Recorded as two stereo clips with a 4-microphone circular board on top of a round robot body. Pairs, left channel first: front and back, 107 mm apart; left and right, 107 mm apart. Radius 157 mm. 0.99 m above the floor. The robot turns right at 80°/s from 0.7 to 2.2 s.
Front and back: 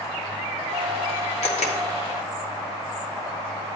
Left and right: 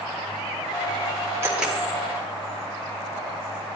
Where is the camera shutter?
25° right, 1.3 m; by 1.8 s 5° left, 1.3 m.